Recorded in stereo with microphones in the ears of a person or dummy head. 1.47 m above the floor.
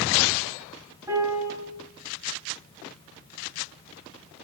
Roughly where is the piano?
Centre.